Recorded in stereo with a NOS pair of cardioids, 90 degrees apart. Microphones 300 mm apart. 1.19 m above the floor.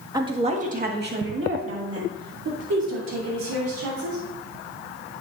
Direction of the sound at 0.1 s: 10° right.